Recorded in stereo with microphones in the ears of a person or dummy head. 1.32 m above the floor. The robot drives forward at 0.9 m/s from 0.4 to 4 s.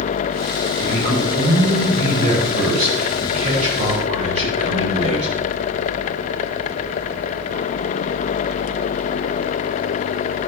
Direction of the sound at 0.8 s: 35° right (ahead or behind).